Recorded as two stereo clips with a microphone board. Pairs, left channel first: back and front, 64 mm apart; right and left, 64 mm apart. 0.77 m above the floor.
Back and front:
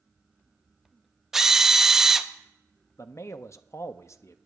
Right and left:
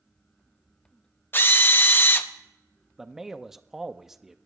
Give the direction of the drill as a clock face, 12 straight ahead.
3 o'clock.